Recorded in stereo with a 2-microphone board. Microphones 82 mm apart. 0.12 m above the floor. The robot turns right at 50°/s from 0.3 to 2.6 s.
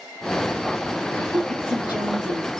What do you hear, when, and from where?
1.1 s a woman speaking: 170° left, 3 m; by 2.5 s 120° right, 3 m